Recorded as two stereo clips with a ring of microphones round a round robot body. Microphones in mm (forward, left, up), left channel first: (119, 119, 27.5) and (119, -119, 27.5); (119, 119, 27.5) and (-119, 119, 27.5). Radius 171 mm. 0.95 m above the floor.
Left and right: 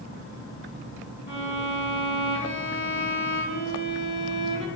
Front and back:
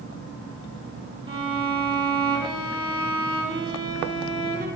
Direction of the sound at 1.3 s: 110° left.